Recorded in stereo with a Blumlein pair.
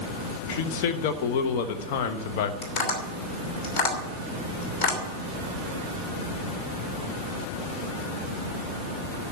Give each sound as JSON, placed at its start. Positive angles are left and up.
{"t": 0.5, "sound": "a man speaking", "azimuth_deg": 45, "distance_m": 1.2}
{"t": 2.6, "sound": "tapping", "azimuth_deg": 40, "distance_m": 3.0}